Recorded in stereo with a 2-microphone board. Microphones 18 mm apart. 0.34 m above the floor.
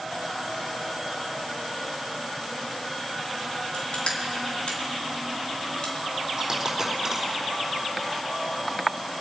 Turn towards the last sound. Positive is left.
turn(degrees=-20)  # may be behind; listen again after turning